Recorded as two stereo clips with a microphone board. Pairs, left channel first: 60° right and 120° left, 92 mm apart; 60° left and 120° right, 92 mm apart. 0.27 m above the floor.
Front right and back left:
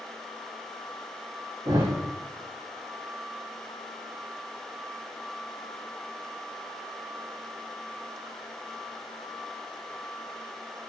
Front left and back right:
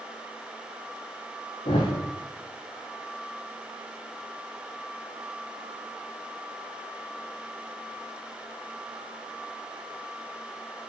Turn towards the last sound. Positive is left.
turn(degrees=75)